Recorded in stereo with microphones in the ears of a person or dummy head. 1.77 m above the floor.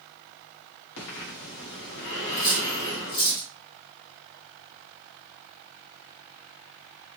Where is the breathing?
65° left (ahead or behind), 1.7 m.